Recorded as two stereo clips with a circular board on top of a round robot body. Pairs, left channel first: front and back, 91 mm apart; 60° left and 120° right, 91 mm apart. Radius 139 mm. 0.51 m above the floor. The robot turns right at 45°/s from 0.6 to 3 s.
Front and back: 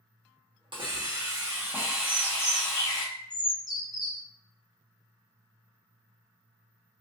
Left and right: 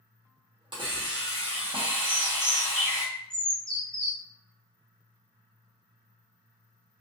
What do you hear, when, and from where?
0.7 s a hiss: 150° right, 1.0 m; by 3.0 s 50° right, 1.0 m
2.0 s a bird: 60° right, 0.9 m; by 4.2 s 20° right, 0.9 m